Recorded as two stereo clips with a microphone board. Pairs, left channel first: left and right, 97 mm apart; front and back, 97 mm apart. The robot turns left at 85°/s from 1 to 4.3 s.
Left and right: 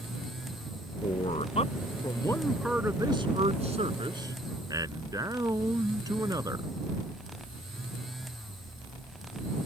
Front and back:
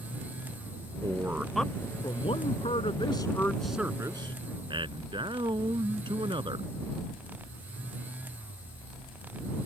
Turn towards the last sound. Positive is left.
turn(degrees=-145)